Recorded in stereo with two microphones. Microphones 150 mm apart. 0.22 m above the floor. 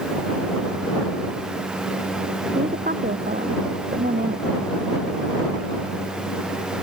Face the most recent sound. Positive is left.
turn(degrees=-80)